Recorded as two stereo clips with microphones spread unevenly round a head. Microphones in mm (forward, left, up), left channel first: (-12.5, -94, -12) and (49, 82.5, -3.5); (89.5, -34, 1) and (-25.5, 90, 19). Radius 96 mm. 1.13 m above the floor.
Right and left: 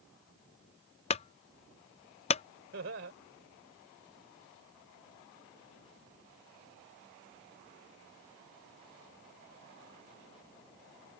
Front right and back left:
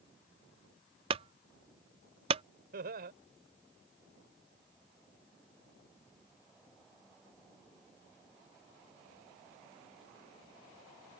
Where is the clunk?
165° right.